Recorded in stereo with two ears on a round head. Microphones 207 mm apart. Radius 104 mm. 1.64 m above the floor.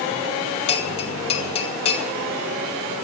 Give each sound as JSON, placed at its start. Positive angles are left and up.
{"t": 0.7, "sound": "a bell", "side_deg": 25, "distance_m": 1.5}